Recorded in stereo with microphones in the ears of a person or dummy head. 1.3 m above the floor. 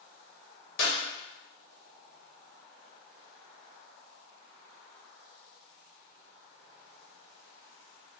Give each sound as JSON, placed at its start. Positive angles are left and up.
{"t": 0.8, "sound": "a clap", "side_deg": 50, "distance_m": 1.0}